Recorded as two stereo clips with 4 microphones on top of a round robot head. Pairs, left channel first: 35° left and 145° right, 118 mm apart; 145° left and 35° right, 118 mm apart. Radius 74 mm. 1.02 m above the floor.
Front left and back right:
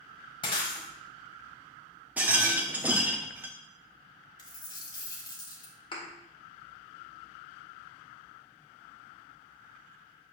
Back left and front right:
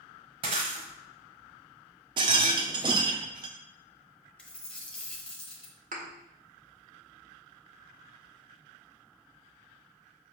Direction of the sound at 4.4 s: 70° left.